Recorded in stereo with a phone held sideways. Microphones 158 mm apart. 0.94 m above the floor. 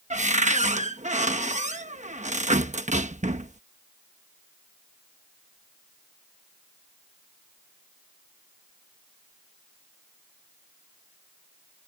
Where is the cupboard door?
50° right (ahead or behind).